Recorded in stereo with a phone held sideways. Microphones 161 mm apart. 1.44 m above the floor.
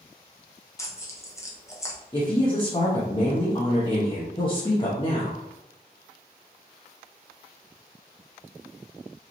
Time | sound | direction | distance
0.8 | tearing paper | 20° left (ahead or behind) | 0.9 m
2.1 | a woman speaking | 30° left (ahead or behind) | 1.1 m